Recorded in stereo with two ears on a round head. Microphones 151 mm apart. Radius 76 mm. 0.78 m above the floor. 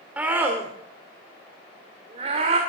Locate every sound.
0.2 s a scream: 10° right (ahead or behind), 2.5 m; by 2.6 s 40° right (ahead or behind), 3 m